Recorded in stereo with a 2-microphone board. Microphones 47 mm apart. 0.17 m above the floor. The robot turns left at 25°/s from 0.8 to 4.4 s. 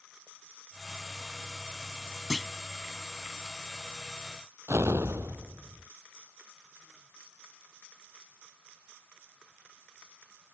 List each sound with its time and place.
2.3 s a clunk: centre (ahead or behind)
4.7 s an explosion: 70° right (ahead or behind)